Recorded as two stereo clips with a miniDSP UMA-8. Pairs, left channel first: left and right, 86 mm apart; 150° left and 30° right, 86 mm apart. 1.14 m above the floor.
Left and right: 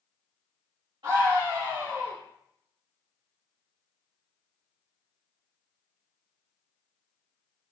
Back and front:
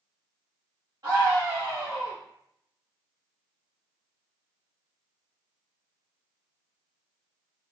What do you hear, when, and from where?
1.0 s a scream: 80° right, 1.6 m